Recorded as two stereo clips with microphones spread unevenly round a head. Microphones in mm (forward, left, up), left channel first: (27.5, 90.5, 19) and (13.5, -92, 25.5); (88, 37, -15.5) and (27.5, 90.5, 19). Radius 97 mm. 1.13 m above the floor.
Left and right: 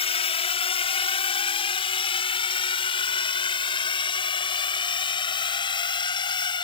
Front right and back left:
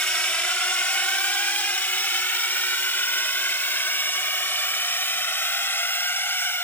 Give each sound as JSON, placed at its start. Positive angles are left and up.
{"t": 0.0, "sound": "a drone", "azimuth_deg": 30}